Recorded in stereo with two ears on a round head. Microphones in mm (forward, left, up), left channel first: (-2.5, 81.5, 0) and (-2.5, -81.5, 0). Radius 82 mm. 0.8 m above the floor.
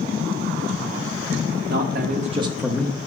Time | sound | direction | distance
1.7 | a man speaking | 60° right (ahead or behind) | 1.6 m